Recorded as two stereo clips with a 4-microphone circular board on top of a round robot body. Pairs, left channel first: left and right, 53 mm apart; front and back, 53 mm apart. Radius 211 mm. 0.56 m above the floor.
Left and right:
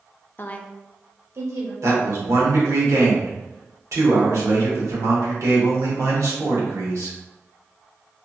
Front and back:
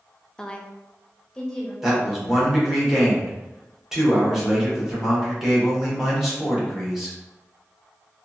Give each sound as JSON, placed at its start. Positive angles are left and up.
{"t": 0.4, "sound": "a woman speaking", "azimuth_deg": 70, "distance_m": 0.6}
{"t": 1.8, "sound": "a man speaking", "azimuth_deg": -100, "distance_m": 1.4}